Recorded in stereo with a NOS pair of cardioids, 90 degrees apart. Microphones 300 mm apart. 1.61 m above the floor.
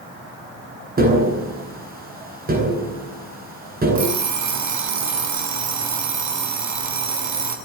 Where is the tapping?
30° right, 10 m.